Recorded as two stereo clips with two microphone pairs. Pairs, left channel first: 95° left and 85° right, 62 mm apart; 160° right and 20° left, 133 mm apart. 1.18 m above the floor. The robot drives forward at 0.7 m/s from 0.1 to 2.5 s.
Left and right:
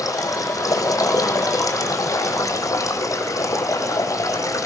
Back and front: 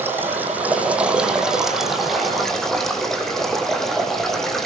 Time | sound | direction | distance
0.0 | running water | 95° left | 5 m